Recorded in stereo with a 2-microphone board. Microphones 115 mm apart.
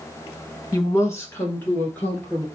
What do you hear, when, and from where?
0.7 s a woman speaking: 30° left (ahead or behind), 1.1 m; by 2.5 s 10° left (ahead or behind), 2.5 m